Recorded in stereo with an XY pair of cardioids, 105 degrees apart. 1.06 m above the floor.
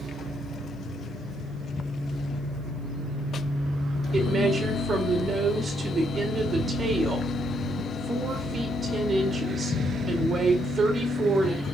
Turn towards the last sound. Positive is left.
turn(degrees=-40)